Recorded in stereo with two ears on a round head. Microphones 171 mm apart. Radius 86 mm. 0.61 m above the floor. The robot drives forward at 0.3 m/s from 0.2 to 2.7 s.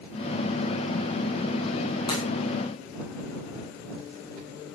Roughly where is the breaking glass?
Left.